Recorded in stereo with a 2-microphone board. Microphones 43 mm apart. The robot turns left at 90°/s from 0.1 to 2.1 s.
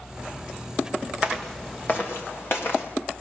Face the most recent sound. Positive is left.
turn(degrees=55)  # may be behind; listen again after turning